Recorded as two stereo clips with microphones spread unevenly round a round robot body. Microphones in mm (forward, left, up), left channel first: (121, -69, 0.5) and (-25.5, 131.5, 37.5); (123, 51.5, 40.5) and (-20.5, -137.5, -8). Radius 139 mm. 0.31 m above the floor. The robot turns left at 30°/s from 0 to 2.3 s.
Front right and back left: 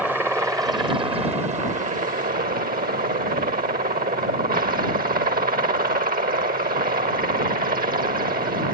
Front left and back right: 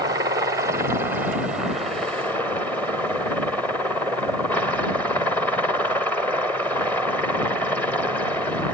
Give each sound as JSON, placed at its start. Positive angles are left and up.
{"t": 0.0, "sound": "a helicopter", "azimuth_deg": -140}